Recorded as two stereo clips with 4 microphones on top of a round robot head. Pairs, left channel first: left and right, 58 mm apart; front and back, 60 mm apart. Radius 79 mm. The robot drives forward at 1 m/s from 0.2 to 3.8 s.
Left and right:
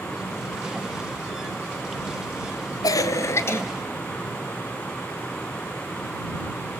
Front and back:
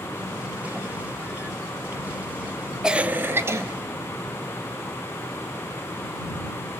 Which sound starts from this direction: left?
A cough, at 2.8 s.